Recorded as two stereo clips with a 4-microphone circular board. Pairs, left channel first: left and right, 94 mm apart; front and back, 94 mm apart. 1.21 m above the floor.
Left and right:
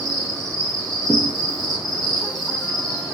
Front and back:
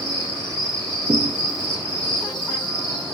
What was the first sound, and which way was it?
An insect, 40° right.